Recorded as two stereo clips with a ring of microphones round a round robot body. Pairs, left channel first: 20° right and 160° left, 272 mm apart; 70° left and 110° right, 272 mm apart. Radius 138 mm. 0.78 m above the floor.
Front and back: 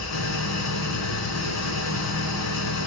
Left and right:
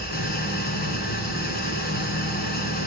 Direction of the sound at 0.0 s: 10° left.